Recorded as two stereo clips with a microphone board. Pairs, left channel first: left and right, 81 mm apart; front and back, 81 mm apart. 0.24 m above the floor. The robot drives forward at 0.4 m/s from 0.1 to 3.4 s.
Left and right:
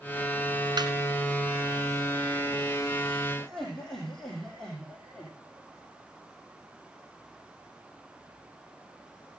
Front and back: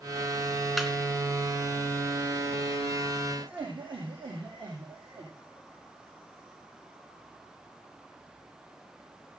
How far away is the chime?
No chime in this recording.